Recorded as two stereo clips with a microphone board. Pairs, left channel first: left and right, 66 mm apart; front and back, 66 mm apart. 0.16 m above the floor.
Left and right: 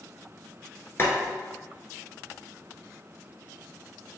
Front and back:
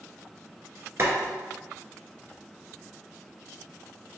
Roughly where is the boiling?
Behind left.